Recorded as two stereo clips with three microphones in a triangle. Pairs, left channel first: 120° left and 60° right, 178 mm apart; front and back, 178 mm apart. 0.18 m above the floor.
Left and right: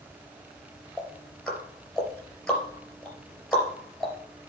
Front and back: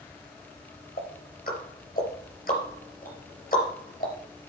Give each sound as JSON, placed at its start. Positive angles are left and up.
{"t": 1.0, "sound": "ticking", "azimuth_deg": 30, "distance_m": 3.5}